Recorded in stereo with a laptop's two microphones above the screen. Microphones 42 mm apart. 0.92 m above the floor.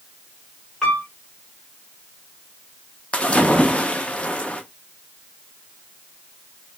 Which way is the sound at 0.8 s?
5° left (ahead or behind).